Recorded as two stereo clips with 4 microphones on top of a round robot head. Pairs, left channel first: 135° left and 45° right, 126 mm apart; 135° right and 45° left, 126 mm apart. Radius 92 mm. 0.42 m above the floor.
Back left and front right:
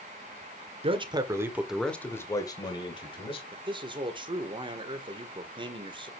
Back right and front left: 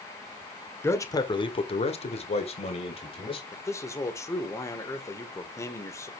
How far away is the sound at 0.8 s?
About 1.7 m.